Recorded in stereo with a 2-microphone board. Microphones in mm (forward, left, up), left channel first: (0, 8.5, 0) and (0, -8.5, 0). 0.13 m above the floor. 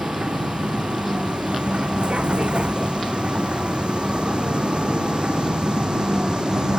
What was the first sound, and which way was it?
A vehicle, 80° right.